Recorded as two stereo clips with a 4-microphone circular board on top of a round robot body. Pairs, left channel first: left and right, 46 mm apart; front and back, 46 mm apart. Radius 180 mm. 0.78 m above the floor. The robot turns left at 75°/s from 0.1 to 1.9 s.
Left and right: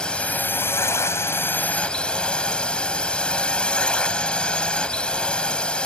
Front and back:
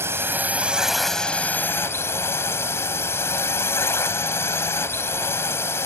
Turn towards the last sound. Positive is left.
turn(degrees=20)